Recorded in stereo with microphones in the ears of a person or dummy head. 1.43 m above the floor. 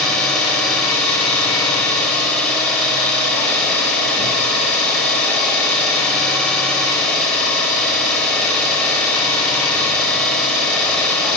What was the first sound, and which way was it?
An engine running, 5° left (ahead or behind).